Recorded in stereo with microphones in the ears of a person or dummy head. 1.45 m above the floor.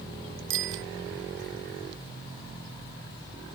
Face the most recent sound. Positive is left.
turn(degrees=-75)  # may be behind; listen again after turning